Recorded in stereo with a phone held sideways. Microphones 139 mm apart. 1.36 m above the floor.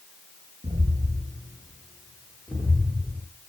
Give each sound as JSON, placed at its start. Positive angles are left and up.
{"t": 0.6, "sound": "footsteps", "side_deg": -40, "distance_m": 1.7}